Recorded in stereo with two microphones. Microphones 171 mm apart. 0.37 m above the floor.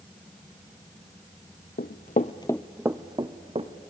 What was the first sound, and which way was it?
Running footsteps, 70° left (ahead or behind).